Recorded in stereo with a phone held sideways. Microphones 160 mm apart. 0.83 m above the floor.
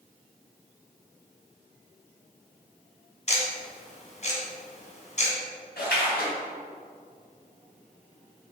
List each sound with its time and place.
3.3 s ticking: 45° left (ahead or behind), 2 m
5.8 s a splash: 75° left (ahead or behind), 3.5 m